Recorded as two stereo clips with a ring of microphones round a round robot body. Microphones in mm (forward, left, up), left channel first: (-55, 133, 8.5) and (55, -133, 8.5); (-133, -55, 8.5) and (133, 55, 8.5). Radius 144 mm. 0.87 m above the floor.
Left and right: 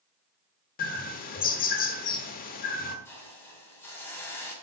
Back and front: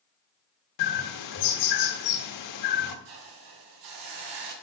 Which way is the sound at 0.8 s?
175° left.